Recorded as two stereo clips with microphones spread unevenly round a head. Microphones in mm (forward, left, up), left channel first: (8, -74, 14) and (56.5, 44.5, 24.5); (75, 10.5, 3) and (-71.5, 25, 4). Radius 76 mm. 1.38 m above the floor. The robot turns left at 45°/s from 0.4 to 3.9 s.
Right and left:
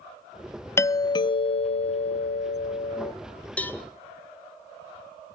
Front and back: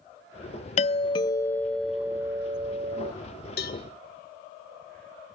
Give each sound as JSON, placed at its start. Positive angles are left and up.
{"t": 0.8, "sound": "a doorbell", "azimuth_deg": -45, "distance_m": 0.5}
{"t": 3.6, "sound": "a cowbell", "azimuth_deg": -35, "distance_m": 1.8}